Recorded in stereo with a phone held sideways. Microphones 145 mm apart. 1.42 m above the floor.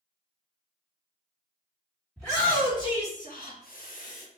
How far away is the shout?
About 1.4 m.